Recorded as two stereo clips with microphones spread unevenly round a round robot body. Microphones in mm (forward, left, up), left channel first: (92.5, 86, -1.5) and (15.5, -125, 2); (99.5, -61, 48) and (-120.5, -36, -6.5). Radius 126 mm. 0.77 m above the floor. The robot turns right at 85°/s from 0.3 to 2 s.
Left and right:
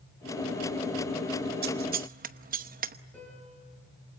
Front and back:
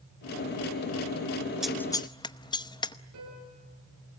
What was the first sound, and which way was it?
Scissors, 120° right.